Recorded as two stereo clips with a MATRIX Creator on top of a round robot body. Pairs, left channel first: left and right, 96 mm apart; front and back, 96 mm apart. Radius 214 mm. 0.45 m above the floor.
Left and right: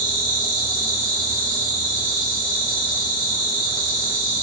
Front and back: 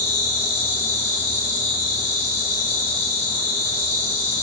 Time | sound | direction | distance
0.0 | an insect | 40° left | 1.3 m